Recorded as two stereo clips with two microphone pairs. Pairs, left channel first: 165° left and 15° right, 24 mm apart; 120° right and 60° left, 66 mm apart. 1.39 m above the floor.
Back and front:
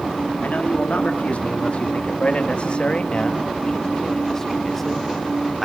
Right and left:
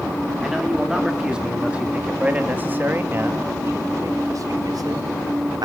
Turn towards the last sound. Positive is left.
turn(degrees=70)